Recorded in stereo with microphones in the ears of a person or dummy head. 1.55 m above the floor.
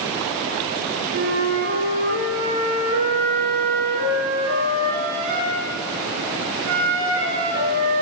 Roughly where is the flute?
Right.